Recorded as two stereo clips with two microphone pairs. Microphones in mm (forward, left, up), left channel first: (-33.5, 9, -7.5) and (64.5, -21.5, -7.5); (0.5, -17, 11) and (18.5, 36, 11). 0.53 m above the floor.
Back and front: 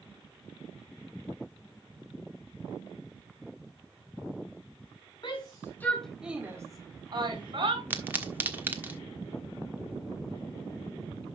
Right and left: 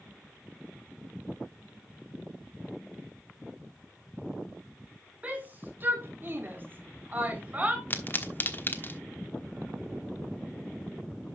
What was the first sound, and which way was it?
A shout, 135° left.